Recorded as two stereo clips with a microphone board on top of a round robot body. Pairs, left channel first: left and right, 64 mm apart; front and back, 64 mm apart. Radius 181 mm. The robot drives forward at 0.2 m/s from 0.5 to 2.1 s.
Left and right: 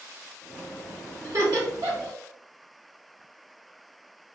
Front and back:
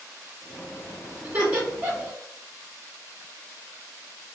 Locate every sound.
1.2 s laughter: 120° right, 1.7 m; by 2.1 s 125° right, 1.8 m